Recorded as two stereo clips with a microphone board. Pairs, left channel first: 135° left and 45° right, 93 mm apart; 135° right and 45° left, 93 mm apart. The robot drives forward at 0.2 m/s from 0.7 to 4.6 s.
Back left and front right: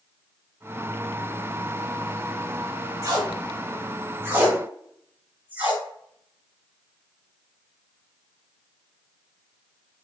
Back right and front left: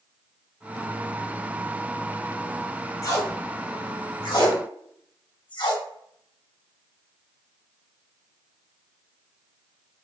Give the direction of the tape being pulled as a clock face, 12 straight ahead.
3 o'clock.